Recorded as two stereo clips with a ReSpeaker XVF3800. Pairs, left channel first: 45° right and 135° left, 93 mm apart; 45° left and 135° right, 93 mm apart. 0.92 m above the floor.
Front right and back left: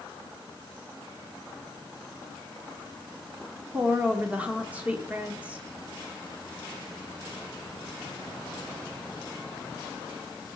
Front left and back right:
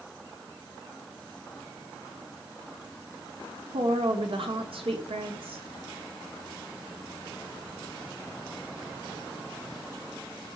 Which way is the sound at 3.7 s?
150° right.